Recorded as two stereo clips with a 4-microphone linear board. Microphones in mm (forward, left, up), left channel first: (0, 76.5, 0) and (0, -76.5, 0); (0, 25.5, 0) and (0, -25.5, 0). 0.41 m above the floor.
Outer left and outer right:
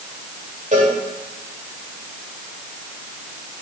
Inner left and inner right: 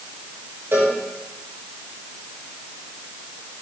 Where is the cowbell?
60° right (ahead or behind), 6 m.